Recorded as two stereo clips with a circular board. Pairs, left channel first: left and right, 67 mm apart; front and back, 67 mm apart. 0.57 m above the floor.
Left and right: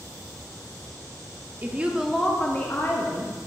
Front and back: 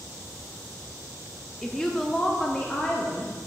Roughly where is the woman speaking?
Right.